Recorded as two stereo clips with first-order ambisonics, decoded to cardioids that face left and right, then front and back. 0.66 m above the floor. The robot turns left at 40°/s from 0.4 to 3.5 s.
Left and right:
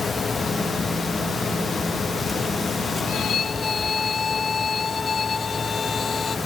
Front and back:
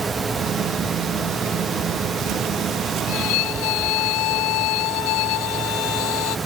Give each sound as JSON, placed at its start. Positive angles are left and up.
{"t": 3.1, "sound": "a violin", "azimuth_deg": 35}